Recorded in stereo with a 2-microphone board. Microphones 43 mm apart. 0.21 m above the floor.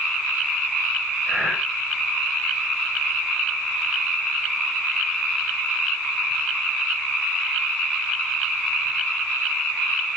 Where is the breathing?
20° left (ahead or behind), 6 m.